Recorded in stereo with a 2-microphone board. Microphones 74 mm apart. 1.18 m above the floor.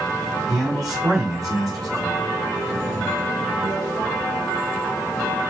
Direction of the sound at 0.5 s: 55° right (ahead or behind).